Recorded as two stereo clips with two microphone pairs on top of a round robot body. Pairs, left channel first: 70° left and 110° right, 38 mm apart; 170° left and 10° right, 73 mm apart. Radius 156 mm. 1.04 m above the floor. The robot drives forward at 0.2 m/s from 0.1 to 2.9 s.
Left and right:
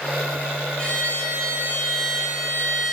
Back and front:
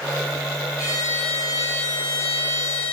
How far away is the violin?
About 1.6 m.